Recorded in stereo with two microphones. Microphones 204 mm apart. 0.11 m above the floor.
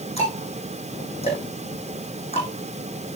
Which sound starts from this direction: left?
Ticking, at 0.2 s.